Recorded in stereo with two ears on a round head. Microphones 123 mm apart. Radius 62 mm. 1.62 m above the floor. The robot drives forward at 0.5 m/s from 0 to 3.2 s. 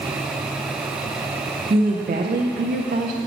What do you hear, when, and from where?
1.7 s a woman speaking: 40° right (ahead or behind), 0.7 m; by 3.2 s 60° right (ahead or behind), 0.5 m